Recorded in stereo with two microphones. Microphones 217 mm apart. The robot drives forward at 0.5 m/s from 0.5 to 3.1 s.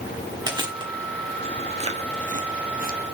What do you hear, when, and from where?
0.5 s chewing: 20° right (ahead or behind), 1.5 m; by 3.0 s 45° right (ahead or behind), 0.8 m